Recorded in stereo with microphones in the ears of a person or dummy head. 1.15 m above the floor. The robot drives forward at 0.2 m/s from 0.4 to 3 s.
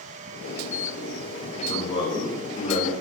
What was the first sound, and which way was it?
A man speaking, 35° left (ahead or behind).